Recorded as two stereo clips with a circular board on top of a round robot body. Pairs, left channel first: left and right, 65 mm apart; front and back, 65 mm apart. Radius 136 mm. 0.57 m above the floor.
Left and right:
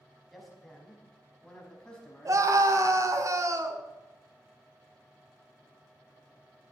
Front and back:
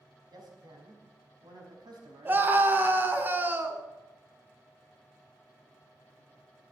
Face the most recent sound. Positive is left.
turn(degrees=-125)